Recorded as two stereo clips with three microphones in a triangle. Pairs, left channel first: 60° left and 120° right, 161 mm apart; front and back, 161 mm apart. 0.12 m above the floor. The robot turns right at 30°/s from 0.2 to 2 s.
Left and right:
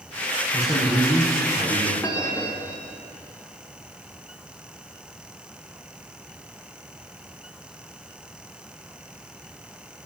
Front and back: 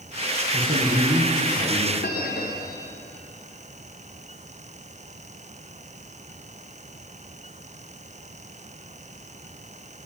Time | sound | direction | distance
0.5 | a man speaking | 145° left | 6.5 m
2.0 | a bell | 15° right | 3 m